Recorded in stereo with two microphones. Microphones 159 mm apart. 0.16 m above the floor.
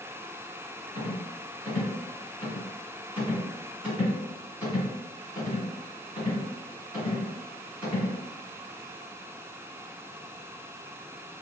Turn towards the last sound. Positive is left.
turn(degrees=-5)  # may be behind; listen again after turning